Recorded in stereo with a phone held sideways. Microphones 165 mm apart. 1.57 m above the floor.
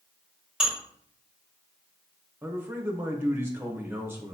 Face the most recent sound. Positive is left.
turn(degrees=-15)  # may be behind; listen again after turning